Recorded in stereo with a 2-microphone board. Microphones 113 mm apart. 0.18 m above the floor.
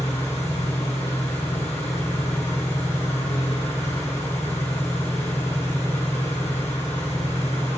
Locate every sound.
0.0 s an engine running: 75° left (ahead or behind), 5 m